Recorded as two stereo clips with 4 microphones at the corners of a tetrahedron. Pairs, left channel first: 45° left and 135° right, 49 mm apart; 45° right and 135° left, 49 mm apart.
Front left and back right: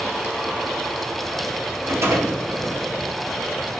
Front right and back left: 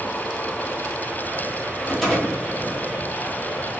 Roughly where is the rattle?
Behind right.